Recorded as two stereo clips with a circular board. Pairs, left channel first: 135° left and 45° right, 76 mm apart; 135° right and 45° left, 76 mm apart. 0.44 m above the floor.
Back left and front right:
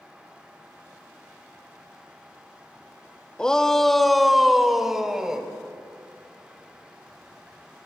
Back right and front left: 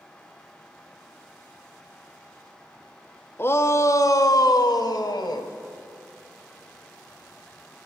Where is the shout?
155° right, 1.0 m; by 5.5 s 125° right, 2 m.